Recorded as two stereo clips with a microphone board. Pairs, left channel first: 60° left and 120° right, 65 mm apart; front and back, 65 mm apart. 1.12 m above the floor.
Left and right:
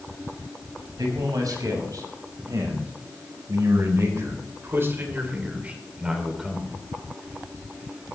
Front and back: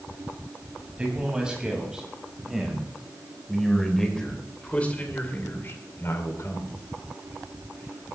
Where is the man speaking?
105° right, 6 m; by 6.7 s 30° right, 3 m.